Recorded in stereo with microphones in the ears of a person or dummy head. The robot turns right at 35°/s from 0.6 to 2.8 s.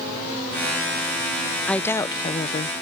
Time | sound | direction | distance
1.7 | a woman speaking | 5° left | ?